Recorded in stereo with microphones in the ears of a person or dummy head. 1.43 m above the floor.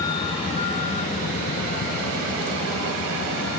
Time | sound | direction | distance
0.0 | a vehicle | 20° left (ahead or behind) | ?